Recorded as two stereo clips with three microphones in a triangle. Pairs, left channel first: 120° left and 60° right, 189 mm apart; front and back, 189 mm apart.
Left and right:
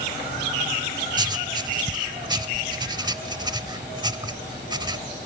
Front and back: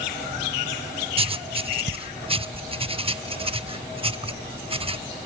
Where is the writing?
120° right, 0.5 m.